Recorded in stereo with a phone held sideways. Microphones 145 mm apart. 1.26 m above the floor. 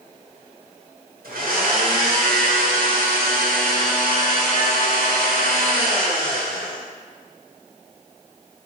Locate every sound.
1.2 s a blender: 85° right, 0.9 m